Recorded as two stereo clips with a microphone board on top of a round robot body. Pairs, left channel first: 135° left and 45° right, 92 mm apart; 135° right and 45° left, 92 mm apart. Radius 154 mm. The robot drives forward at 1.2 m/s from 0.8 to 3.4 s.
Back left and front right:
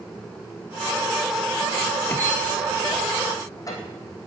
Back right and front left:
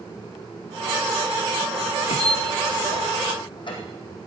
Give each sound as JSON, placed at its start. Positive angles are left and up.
{"t": 2.1, "sound": "a squeak", "azimuth_deg": -150, "distance_m": 1.0}